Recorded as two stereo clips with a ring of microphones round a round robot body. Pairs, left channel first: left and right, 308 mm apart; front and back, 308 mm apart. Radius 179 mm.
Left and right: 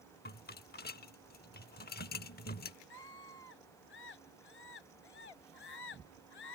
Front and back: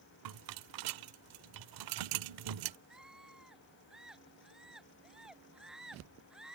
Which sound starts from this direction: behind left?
A rattle, at 0.2 s.